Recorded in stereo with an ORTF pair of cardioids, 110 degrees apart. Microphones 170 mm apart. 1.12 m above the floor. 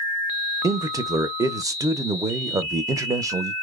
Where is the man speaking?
20° right, 0.6 m.